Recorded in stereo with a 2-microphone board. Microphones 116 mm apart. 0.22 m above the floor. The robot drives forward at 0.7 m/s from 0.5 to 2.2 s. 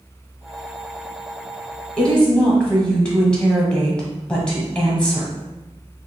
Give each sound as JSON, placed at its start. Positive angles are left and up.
{"t": 2.0, "sound": "a woman speaking", "side_deg": 10, "distance_m": 1.2}